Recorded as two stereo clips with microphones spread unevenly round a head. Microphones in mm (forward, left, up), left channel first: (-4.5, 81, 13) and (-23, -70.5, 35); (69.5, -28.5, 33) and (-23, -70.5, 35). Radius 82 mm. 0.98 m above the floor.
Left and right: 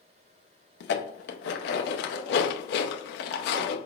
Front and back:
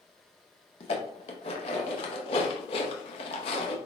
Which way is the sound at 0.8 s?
70° left.